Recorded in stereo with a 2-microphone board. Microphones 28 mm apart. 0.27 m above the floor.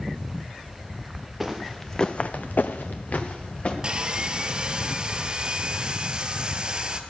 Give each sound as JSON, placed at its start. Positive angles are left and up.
{"t": 1.4, "sound": "footsteps", "side_deg": -5, "distance_m": 1.4}
{"t": 3.8, "sound": "sawing", "side_deg": -30, "distance_m": 0.8}